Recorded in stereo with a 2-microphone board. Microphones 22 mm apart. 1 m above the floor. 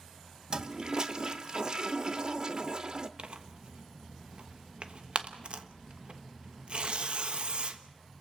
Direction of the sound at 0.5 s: 40° right (ahead or behind).